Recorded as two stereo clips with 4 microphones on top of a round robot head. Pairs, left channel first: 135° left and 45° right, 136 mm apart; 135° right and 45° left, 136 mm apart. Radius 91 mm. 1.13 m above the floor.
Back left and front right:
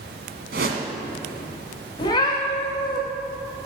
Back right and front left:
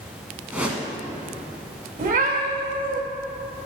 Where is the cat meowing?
70° left, 2.5 m.